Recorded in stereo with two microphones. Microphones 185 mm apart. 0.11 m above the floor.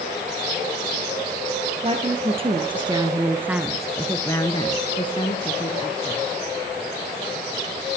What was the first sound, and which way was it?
A woman speaking, 35° right (ahead or behind).